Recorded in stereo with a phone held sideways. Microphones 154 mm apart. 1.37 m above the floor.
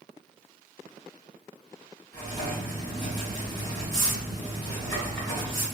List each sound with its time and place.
2.1 s writing: 30° left (ahead or behind), 1.5 m